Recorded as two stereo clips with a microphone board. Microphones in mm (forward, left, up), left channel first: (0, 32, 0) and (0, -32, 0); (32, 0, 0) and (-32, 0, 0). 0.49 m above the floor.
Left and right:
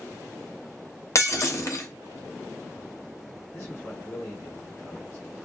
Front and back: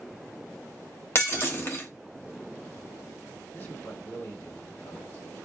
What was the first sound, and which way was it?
Breaking glass, 50° left.